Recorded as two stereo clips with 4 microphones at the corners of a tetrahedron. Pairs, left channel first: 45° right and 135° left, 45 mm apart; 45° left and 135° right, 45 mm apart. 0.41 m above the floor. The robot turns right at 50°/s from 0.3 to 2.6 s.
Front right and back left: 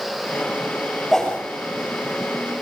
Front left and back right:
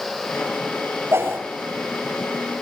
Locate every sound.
1.1 s a whoosh: 125° right, 8 m; by 1.4 s 115° right, 8 m